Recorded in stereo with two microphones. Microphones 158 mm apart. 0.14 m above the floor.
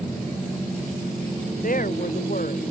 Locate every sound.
1.6 s a woman speaking: 60° left (ahead or behind)